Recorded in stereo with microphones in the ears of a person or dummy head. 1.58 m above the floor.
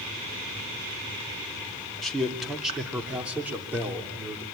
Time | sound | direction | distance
2.0 | a man speaking | 5° left (ahead or behind) | 2.5 m